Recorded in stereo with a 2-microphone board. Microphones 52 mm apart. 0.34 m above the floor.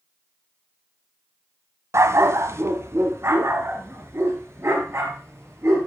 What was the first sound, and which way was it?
A dog barking, 70° right (ahead or behind).